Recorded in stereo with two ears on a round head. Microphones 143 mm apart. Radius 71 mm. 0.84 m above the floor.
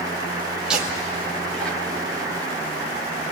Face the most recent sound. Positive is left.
turn(degrees=15)  # may be behind; listen again after turning